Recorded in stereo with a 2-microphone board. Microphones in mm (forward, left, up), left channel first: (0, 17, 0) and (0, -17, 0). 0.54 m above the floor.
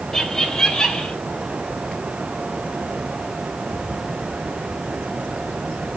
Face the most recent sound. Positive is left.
turn(degrees=20)  # may be behind; listen again after turning